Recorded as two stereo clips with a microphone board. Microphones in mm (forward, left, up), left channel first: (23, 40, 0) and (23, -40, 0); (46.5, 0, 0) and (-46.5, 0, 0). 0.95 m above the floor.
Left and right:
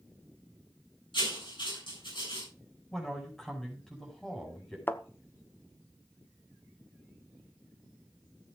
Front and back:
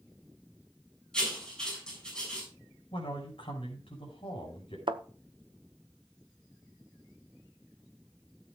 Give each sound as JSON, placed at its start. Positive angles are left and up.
{"t": 1.1, "sound": "writing", "azimuth_deg": 80, "distance_m": 7.0}
{"t": 2.9, "sound": "a man speaking", "azimuth_deg": 5, "distance_m": 5.5}
{"t": 4.9, "sound": "a thud", "azimuth_deg": 155, "distance_m": 0.9}